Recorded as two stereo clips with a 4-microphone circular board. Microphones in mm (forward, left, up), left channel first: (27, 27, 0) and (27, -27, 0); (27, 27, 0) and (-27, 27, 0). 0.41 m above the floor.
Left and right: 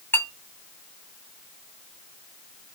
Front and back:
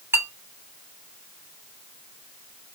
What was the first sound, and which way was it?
A clink, 135° left.